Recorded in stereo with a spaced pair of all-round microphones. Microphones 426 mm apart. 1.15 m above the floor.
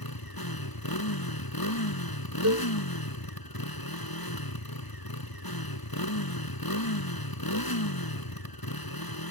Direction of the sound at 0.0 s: 60° left (ahead or behind).